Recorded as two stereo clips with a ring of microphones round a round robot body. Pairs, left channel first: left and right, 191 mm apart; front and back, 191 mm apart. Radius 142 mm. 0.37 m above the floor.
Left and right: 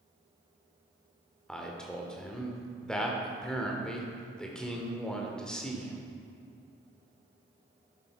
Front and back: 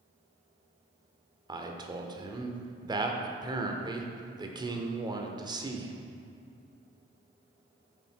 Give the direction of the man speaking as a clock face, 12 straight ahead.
6 o'clock.